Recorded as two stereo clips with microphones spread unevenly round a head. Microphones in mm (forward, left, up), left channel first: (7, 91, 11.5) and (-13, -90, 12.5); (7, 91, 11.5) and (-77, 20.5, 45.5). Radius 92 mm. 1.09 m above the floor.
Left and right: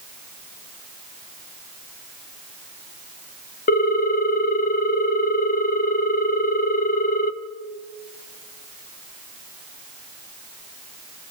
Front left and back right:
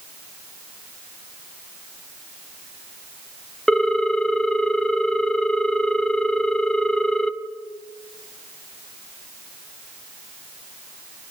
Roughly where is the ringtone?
Behind left.